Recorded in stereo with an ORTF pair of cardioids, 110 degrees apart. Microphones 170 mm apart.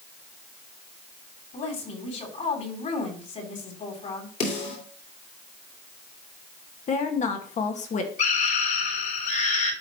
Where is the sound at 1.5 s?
45° left, 4 m.